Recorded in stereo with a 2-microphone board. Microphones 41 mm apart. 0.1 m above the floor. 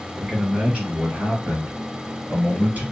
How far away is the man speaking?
About 1.9 m.